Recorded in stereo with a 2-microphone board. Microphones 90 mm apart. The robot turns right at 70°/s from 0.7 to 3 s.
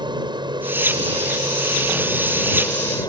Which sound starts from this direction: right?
An aircraft, at 0.0 s.